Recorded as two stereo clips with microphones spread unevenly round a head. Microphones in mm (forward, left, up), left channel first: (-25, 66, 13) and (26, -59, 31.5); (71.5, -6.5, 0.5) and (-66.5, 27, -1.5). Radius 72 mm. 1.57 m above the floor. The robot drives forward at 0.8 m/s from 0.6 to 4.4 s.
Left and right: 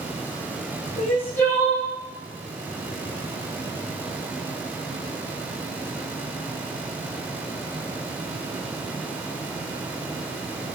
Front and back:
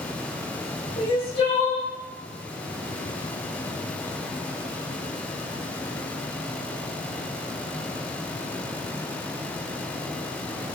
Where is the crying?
35° left, 2 m; by 1.9 s 50° left, 1.6 m.